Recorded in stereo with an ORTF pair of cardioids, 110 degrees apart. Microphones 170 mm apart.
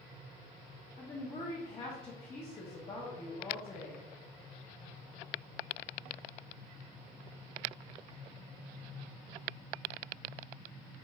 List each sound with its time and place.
1.0 s a woman speaking: 35° left, 0.9 m